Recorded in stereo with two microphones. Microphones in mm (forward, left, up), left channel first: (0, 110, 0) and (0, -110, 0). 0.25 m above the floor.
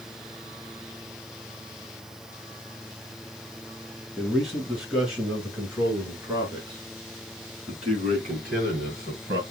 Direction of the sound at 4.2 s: Centre (ahead or behind).